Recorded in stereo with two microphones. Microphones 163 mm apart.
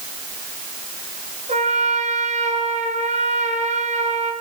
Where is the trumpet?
45° right (ahead or behind), 4 m.